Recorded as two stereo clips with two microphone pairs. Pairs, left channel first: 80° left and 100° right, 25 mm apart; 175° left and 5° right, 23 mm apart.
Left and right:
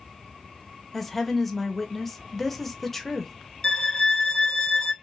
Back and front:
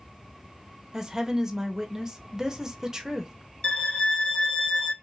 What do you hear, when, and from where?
0.9 s a woman speaking: 10° left, 0.7 m
3.6 s a violin: 140° left, 0.6 m